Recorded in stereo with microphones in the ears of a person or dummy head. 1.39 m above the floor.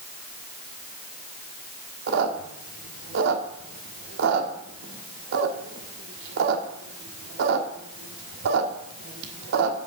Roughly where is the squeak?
Right.